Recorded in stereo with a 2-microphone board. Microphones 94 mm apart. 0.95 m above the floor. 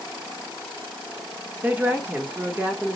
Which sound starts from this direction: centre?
A woman speaking, at 1.6 s.